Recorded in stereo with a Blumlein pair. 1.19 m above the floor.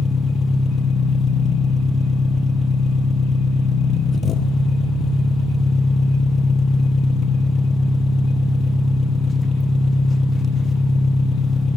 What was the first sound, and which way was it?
An engine running, 25° left.